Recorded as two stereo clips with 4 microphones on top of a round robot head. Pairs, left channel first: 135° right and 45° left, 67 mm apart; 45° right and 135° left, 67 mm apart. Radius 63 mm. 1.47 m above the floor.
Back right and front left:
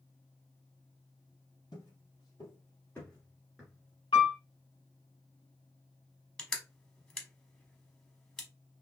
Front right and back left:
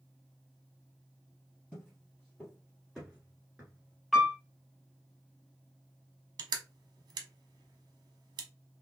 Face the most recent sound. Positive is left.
turn(degrees=145)